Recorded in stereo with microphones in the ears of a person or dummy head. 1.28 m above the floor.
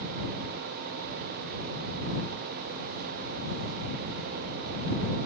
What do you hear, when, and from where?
Only background noise.